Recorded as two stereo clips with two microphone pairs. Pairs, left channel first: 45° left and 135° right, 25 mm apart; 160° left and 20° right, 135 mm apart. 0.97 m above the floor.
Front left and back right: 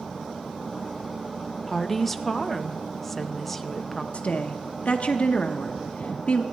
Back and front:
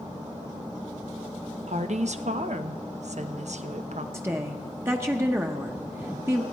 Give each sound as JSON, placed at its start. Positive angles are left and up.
{"t": 1.7, "sound": "a woman speaking", "azimuth_deg": -35, "distance_m": 0.7}
{"t": 4.1, "sound": "a woman speaking", "azimuth_deg": 50, "distance_m": 0.8}